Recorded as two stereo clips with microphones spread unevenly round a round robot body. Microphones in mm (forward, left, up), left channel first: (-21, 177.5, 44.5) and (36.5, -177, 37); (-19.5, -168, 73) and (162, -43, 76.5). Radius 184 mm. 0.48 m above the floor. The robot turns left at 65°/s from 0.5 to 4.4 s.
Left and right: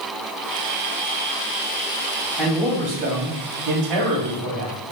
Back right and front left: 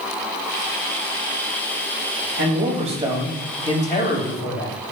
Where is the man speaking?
5° left, 3 m; by 4.8 s 125° right, 3 m.